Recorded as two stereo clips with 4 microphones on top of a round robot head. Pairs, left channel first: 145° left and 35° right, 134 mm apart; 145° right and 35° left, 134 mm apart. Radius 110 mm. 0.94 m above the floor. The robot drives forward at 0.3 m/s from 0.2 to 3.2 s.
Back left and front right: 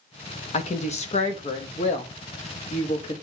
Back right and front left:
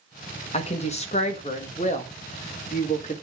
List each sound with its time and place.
0.5 s a woman speaking: straight behind, 1.5 m